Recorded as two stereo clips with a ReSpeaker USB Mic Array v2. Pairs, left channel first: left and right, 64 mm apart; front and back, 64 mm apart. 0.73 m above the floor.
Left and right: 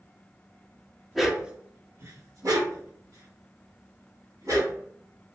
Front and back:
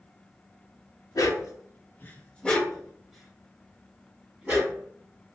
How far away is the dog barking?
About 0.7 m.